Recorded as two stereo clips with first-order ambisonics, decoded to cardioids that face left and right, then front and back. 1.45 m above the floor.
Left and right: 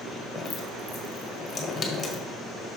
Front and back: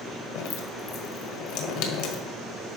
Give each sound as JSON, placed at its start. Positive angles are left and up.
{"t": 0.3, "sound": "dripping", "azimuth_deg": 10, "distance_m": 1.3}